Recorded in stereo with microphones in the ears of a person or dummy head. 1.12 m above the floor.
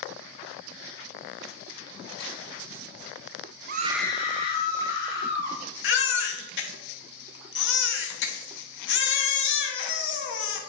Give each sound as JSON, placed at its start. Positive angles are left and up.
{"t": 3.7, "sound": "a scream", "side_deg": -50, "distance_m": 0.6}
{"t": 5.8, "sound": "a baby crying", "side_deg": 65, "distance_m": 0.9}